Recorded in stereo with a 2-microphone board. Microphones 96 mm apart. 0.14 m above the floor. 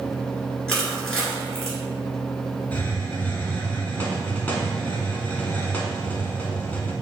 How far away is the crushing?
About 1.6 m.